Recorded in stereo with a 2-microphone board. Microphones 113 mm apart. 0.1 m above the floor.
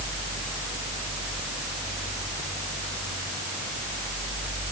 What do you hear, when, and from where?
Only background noise.